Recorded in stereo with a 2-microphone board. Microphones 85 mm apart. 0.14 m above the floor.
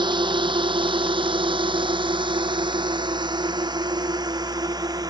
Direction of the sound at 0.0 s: 65° right (ahead or behind).